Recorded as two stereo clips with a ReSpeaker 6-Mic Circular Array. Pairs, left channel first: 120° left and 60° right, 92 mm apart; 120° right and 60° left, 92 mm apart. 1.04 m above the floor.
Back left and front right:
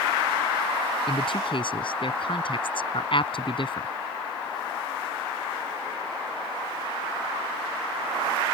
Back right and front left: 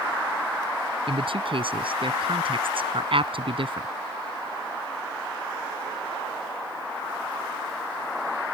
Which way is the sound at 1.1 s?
90° left.